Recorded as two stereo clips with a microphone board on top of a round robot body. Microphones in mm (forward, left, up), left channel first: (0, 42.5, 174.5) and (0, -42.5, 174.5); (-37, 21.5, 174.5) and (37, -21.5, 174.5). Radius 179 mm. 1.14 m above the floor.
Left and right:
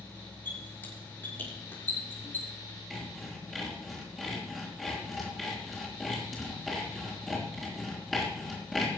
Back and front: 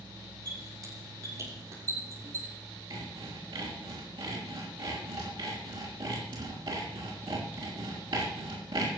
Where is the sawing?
Straight ahead, 4 m.